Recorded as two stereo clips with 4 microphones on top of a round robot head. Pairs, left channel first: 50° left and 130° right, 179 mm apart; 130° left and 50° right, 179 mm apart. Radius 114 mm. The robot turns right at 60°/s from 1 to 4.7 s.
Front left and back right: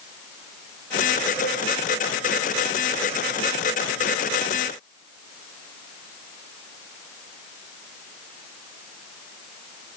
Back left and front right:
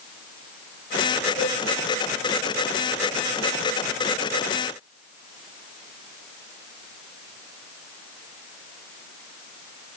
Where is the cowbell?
10° right, 4 m; by 1.5 s straight ahead, 4 m.